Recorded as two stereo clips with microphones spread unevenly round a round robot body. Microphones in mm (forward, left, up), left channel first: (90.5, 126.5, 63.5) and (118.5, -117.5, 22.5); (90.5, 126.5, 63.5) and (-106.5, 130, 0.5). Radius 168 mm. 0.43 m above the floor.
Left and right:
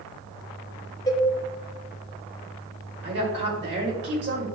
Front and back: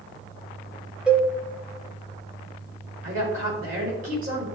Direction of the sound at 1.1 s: 170° left.